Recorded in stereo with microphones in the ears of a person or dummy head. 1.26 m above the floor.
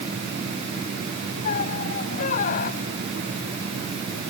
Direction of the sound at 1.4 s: 40° left (ahead or behind).